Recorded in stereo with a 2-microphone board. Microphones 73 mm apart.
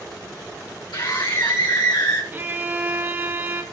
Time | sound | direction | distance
0.9 | a scream | 80° left | 5.5 m
2.3 | a violin | 25° right (ahead or behind) | 1.9 m